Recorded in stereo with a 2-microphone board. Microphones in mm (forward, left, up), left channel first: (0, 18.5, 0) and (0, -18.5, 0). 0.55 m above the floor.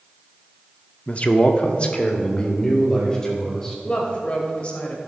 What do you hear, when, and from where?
1.1 s a man speaking: 35° left (ahead or behind), 0.7 m; by 3.8 s 20° left (ahead or behind), 2.5 m
3.9 s a woman speaking: 35° left (ahead or behind), 2.5 m